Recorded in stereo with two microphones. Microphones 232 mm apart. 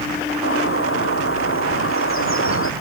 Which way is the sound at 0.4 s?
65° left (ahead or behind).